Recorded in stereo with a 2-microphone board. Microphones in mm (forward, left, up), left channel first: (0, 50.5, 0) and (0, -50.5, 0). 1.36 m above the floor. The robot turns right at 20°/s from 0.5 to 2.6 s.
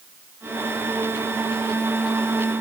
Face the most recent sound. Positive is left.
No sound to turn to.